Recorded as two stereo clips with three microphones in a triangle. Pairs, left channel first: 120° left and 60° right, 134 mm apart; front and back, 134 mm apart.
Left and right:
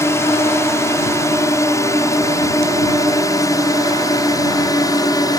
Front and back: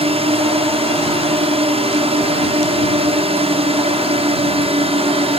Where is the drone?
Straight behind; by 5.4 s 170° left.